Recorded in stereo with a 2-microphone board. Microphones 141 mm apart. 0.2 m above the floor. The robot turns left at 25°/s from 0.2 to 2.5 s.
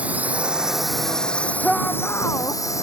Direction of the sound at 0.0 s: 10° right (ahead or behind).